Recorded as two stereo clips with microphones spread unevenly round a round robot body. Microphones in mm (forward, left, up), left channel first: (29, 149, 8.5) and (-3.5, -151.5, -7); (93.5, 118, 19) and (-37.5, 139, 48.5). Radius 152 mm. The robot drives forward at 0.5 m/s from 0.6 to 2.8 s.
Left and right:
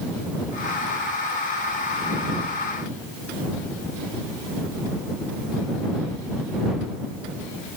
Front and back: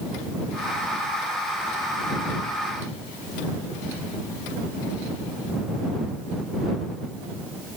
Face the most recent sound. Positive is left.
No sound to turn to.